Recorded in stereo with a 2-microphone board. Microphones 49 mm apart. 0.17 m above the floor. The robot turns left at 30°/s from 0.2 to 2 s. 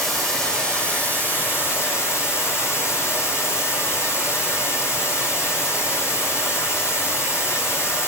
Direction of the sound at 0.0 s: 175° left.